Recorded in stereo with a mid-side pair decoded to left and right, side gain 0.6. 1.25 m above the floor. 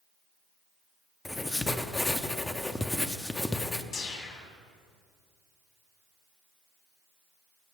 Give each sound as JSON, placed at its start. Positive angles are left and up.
{"t": 1.2, "sound": "writing", "azimuth_deg": 15, "distance_m": 0.5}
{"t": 3.9, "sound": "a whoosh", "azimuth_deg": 55, "distance_m": 1.5}